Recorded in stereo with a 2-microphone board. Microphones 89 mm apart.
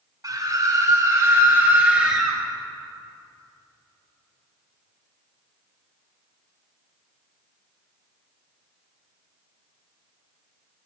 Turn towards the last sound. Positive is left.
turn(degrees=-5)  # may be behind; listen again after turning